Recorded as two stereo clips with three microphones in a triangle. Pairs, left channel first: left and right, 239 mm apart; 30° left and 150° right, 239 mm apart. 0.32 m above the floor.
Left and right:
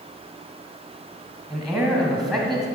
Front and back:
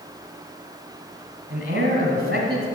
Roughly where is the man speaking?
Behind.